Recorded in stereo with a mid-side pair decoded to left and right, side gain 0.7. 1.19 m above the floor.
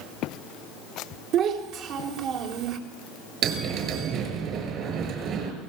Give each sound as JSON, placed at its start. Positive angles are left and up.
{"t": 1.3, "sound": "a child speaking", "azimuth_deg": -60, "distance_m": 3.5}
{"t": 3.4, "sound": "a bell", "azimuth_deg": -50, "distance_m": 6.0}